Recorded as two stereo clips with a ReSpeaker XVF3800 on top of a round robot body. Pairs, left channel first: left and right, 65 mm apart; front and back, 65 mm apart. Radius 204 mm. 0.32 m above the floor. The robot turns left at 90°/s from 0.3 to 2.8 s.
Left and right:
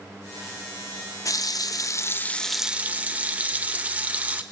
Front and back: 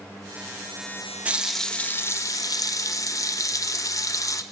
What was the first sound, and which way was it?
A running tap, 115° left.